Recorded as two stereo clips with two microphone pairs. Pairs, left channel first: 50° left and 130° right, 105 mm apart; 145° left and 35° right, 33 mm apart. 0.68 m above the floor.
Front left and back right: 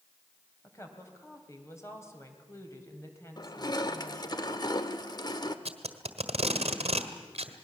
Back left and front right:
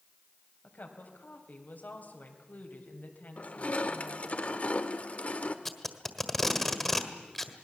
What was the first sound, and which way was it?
A woman speaking, 115° left.